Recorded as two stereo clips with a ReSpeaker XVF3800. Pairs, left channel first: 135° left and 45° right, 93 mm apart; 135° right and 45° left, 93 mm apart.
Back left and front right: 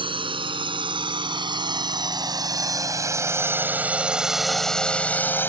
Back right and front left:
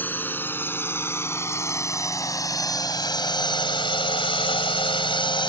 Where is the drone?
65° right; by 5.5 s 160° right.